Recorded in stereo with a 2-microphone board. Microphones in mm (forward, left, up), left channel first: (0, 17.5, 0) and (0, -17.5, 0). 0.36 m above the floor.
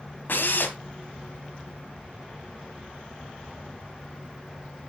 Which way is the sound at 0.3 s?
70° left (ahead or behind).